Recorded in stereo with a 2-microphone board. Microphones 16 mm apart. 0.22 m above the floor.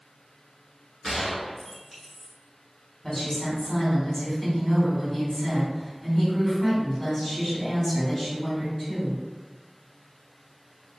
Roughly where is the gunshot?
Centre.